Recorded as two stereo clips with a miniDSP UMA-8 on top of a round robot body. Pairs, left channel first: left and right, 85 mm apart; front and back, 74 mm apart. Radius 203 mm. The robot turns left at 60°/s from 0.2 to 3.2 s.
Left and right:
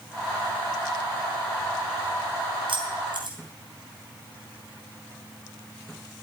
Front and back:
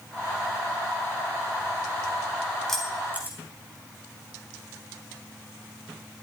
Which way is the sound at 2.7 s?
85° right.